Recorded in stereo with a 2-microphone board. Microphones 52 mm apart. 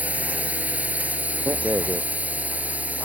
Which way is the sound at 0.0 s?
30° right (ahead or behind).